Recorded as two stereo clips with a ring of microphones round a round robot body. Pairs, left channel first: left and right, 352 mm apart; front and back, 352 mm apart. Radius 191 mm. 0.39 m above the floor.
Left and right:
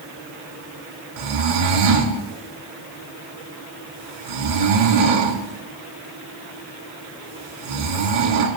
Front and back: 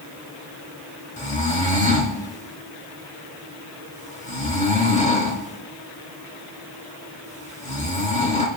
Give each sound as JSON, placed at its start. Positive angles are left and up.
{"t": 1.2, "sound": "snoring", "azimuth_deg": -70, "distance_m": 2.5}